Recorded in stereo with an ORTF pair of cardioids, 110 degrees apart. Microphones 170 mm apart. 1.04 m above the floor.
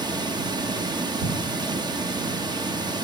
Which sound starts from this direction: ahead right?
Running water, at 0.0 s.